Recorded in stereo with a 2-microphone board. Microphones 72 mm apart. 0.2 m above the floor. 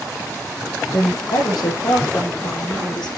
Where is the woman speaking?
65° left (ahead or behind), 7 m; by 3.1 s 70° left (ahead or behind), 9 m.